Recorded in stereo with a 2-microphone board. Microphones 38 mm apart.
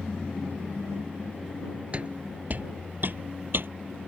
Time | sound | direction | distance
1.9 | footsteps | 30° right (ahead or behind) | ?